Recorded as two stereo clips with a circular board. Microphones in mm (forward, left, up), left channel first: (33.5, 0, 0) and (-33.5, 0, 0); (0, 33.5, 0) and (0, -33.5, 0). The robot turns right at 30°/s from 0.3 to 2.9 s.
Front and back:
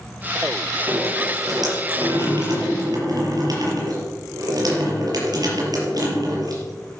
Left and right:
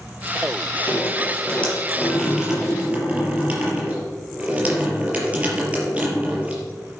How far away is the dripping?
About 5 m.